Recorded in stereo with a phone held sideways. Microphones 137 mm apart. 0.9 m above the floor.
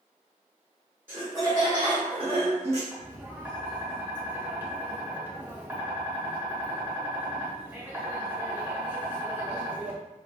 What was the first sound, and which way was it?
Laughter, 15° right (ahead or behind).